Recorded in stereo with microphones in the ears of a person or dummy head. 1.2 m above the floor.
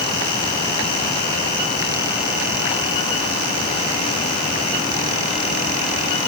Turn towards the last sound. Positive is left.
No sound to turn to.